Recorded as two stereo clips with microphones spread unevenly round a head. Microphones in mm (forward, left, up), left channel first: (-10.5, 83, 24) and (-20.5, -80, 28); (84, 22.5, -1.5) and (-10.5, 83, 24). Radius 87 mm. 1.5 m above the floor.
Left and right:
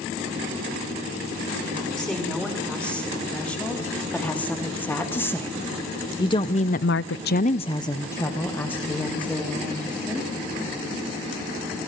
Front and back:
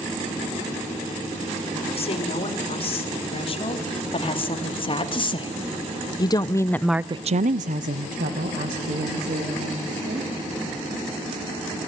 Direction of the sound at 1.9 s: Straight ahead.